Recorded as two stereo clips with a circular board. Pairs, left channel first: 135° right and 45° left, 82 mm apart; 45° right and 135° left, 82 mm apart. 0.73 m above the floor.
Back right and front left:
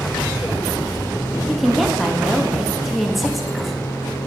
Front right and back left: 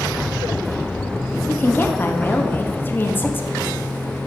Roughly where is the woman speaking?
Ahead right.